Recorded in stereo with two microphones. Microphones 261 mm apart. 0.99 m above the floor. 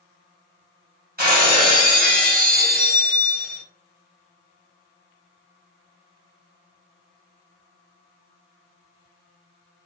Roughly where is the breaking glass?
Right.